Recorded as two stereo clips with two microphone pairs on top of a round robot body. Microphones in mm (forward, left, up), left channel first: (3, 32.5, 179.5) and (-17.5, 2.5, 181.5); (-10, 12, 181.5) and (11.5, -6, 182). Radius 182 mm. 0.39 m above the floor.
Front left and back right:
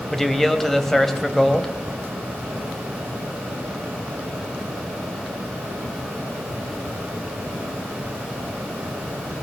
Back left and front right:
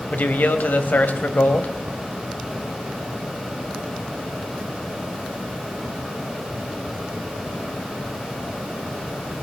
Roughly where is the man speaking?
Behind left.